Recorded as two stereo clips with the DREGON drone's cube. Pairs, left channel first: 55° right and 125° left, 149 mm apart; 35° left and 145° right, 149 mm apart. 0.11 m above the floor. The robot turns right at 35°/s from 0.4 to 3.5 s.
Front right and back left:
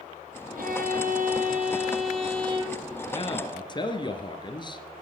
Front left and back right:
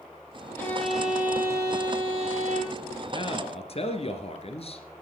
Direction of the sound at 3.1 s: 15° right.